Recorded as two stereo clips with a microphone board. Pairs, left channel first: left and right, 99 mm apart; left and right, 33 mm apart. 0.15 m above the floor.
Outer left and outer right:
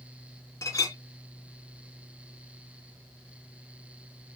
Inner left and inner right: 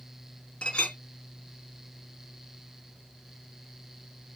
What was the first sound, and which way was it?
A clink, 35° left (ahead or behind).